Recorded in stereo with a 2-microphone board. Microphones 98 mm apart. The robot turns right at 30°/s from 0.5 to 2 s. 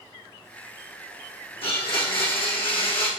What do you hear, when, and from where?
1.6 s a blender: 75° left (ahead or behind), 4 m; by 3.1 s 60° left (ahead or behind), 4 m